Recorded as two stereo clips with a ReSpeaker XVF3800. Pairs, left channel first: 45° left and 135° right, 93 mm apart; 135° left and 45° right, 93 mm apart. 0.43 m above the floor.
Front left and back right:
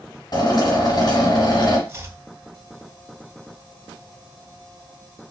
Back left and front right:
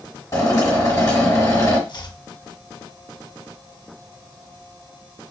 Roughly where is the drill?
Left.